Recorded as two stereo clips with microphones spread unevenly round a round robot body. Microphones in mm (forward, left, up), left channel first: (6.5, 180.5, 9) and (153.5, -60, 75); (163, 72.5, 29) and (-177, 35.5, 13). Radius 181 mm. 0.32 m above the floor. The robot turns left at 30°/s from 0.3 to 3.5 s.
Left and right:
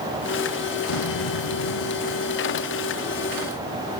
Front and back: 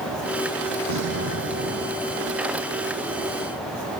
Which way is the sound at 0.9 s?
145° left.